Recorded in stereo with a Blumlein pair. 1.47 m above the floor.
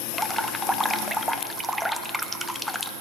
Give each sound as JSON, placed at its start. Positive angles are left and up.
{"t": 0.1, "sound": "dripping", "azimuth_deg": 0, "distance_m": 0.7}